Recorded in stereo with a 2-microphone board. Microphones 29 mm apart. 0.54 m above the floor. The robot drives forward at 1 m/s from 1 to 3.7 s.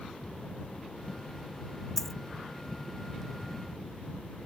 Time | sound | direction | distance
2.0 | a dropped coin | 10° left (ahead or behind) | ?